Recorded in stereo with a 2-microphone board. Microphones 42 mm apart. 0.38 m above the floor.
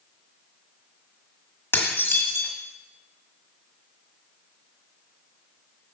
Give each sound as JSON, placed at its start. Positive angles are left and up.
{"t": 1.7, "sound": "dishes clattering", "side_deg": 55, "distance_m": 1.4}